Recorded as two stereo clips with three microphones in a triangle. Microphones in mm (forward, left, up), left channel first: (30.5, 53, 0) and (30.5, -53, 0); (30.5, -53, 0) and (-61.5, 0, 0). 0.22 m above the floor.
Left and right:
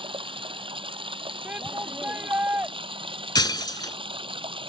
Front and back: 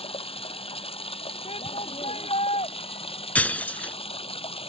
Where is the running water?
55° right.